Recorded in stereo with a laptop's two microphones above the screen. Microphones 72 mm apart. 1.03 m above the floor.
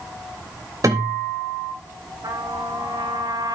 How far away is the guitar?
About 3 m.